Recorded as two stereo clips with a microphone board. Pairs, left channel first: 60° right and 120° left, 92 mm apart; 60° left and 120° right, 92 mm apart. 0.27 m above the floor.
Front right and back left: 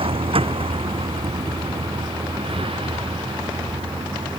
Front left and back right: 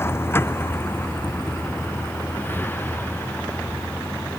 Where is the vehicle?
125° left; by 4.4 s 130° left.